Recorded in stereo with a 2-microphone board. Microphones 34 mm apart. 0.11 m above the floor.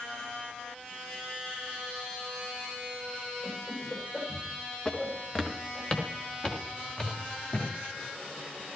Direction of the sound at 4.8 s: 25° left (ahead or behind).